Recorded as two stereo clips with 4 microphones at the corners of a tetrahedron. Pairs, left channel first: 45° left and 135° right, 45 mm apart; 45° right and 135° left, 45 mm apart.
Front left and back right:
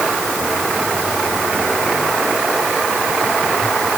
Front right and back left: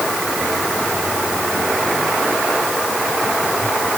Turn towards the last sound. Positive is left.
No sound to turn to.